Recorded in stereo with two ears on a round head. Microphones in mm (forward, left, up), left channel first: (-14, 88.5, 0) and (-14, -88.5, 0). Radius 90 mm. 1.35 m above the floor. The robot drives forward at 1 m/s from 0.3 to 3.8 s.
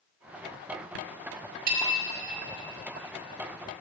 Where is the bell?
45° right (ahead or behind), 2.0 m; by 1.9 s 50° right (ahead or behind), 1.8 m.